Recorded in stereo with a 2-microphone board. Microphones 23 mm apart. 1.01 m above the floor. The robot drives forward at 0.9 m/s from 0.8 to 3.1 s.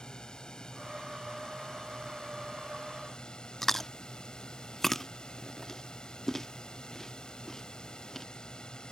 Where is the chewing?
15° left (ahead or behind).